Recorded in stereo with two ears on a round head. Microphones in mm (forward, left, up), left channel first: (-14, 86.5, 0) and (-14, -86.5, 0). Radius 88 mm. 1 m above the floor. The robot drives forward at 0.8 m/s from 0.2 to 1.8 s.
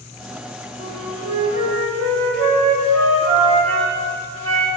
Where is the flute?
70° right (ahead or behind), 1.8 m; by 4.7 s 75° right (ahead or behind), 1.7 m.